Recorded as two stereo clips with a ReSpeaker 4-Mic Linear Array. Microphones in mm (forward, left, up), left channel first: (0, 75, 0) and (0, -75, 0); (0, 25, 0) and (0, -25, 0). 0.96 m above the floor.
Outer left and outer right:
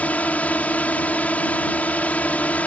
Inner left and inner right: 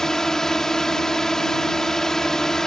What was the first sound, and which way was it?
A drone, 10° left (ahead or behind).